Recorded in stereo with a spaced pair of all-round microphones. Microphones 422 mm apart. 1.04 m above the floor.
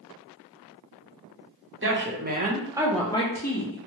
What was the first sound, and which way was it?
A woman speaking, 30° right (ahead or behind).